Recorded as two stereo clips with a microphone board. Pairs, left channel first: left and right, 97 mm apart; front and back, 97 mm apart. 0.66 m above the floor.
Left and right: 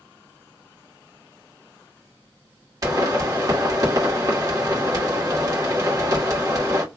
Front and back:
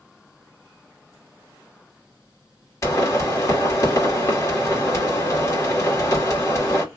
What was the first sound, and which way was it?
A pop, 50° right.